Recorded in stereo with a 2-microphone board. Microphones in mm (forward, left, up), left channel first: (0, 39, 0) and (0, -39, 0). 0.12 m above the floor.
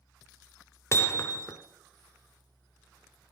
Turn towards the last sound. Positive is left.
turn(degrees=35)  # may be behind; listen again after turning